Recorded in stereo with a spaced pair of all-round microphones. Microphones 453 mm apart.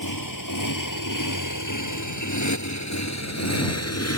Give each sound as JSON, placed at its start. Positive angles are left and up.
{"t": 0.0, "sound": "a motorcycle", "side_deg": 45}